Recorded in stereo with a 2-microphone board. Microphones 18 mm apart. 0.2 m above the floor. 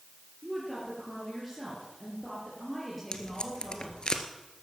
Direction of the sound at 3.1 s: 45° left (ahead or behind).